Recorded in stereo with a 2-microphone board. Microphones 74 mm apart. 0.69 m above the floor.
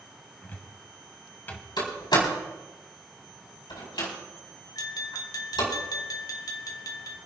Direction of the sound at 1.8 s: 80° left.